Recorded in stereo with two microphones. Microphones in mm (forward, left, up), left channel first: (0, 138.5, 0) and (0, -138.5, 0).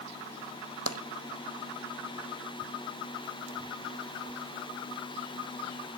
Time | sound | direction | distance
0.9 | tapping | 60° right (ahead or behind) | 0.6 m